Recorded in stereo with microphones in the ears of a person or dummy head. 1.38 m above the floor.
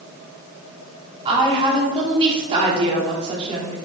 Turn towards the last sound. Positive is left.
turn(degrees=-30)  # may be behind; listen again after turning